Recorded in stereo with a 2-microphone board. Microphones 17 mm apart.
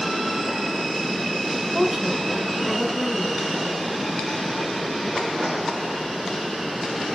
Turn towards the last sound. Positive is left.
turn(degrees=-20)  # may be behind; listen again after turning